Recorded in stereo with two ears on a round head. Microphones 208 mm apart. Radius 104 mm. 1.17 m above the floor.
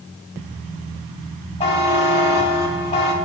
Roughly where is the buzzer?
Left.